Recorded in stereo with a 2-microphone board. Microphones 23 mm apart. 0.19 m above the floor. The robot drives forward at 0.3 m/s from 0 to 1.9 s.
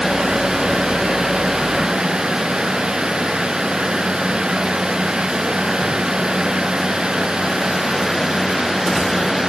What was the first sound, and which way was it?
Only background noise.